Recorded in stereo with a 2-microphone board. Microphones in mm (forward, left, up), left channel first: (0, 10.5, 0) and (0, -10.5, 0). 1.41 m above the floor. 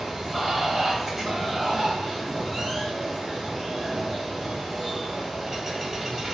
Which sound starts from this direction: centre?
Running water, at 0.0 s.